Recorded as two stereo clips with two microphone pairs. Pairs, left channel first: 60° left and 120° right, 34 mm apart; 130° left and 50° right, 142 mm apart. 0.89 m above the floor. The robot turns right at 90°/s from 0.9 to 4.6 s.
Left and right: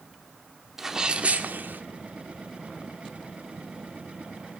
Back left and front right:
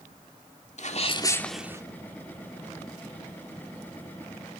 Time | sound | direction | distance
0.8 | a sneeze | 165° left | 2 m